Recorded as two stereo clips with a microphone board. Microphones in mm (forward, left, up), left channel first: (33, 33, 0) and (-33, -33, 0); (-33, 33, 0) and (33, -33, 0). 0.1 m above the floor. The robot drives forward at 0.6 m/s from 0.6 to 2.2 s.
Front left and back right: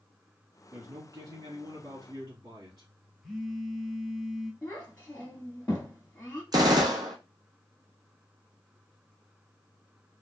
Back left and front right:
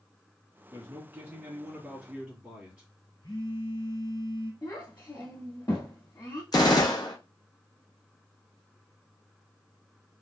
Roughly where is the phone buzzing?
Behind left.